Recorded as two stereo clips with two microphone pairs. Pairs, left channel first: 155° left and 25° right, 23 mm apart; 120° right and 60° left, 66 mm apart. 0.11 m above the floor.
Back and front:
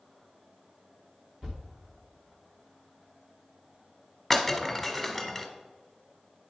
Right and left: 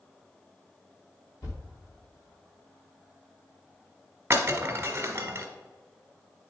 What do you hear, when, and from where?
1.4 s a thud: 80° right, 2.5 m
4.3 s breaking glass: 85° left, 1.1 m